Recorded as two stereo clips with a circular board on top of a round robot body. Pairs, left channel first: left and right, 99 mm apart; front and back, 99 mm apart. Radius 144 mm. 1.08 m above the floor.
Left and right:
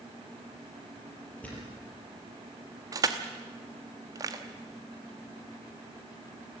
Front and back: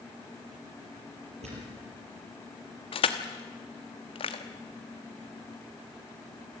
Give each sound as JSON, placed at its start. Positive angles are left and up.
{"t": 1.4, "sound": "a thud", "azimuth_deg": 165, "distance_m": 6.0}
{"t": 2.9, "sound": "crushing", "azimuth_deg": -35, "distance_m": 1.1}